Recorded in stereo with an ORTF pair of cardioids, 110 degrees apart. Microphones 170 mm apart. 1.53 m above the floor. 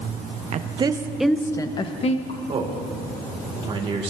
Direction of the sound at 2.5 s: 35° right.